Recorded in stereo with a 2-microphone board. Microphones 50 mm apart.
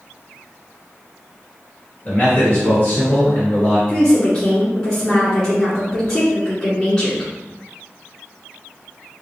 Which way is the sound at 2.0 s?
35° left (ahead or behind).